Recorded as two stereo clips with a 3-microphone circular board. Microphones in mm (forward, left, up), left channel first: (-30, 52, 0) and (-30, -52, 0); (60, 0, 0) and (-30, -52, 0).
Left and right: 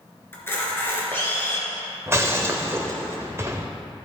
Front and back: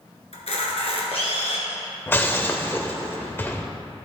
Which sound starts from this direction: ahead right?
Breaking glass, at 2.1 s.